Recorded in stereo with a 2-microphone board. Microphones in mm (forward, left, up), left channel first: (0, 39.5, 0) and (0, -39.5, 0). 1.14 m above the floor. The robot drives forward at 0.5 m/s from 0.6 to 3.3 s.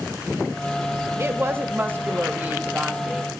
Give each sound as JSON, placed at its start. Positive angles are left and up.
{"t": 1.2, "sound": "a woman speaking", "side_deg": -30, "distance_m": 1.2}